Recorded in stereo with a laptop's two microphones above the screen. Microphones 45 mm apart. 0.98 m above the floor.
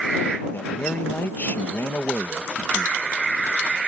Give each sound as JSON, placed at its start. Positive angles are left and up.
{"t": 0.5, "sound": "a man speaking", "side_deg": 45}